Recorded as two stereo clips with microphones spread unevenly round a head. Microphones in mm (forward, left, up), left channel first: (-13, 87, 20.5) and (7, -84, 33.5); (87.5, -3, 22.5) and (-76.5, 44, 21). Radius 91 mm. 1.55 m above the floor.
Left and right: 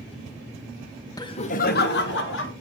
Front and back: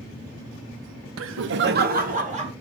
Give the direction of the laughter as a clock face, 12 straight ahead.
6 o'clock.